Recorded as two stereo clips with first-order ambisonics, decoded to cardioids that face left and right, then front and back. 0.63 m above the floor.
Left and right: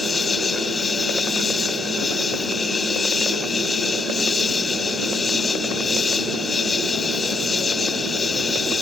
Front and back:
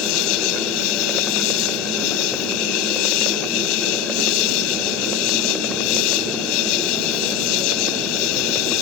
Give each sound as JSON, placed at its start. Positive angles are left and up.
{"t": 0.0, "sound": "an insect", "azimuth_deg": 15}